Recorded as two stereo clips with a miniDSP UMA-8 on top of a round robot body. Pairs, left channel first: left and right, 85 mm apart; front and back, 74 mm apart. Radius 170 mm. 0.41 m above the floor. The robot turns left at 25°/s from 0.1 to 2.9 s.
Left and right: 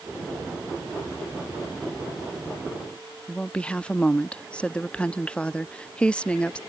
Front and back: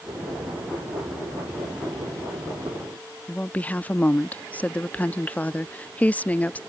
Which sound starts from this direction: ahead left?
A woman speaking, at 3.3 s.